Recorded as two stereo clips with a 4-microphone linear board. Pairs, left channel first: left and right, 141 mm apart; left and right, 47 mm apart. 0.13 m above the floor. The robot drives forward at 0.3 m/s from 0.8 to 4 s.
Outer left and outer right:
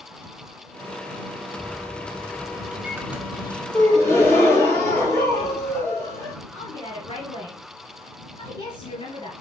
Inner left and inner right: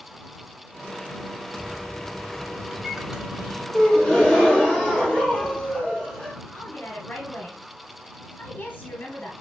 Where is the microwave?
10° right (ahead or behind), 1.3 m.